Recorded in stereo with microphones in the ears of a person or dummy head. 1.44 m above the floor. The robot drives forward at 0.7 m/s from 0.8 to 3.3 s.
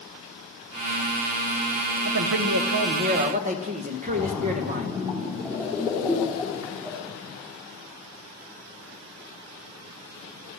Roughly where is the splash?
Centre.